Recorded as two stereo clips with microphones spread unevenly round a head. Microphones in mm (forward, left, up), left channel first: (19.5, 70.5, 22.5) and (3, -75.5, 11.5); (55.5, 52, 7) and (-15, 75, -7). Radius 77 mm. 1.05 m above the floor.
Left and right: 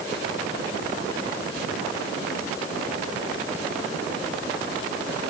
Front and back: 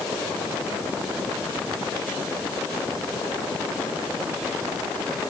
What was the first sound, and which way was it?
Only background noise.